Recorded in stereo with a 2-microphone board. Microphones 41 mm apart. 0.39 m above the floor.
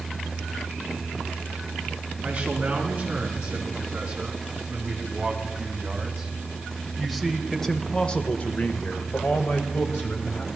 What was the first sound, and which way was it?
A man speaking, 25° right (ahead or behind).